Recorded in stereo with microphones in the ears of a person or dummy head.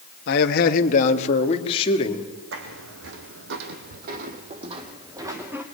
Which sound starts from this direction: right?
Footsteps, at 2.5 s.